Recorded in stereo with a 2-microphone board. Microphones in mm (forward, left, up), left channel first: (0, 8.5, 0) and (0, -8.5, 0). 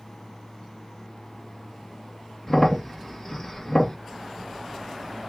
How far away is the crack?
About 0.7 m.